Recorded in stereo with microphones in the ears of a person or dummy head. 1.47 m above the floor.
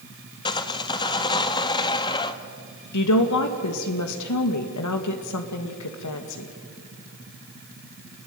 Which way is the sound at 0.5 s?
20° left (ahead or behind).